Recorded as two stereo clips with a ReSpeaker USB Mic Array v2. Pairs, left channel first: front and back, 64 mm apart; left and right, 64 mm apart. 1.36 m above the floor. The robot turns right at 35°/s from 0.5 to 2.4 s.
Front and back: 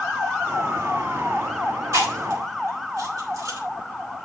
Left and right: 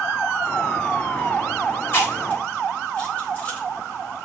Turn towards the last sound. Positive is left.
turn(degrees=160)